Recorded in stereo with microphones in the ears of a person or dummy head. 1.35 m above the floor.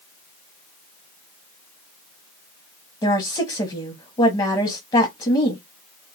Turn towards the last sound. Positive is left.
turn(degrees=20)  # may be behind; listen again after turning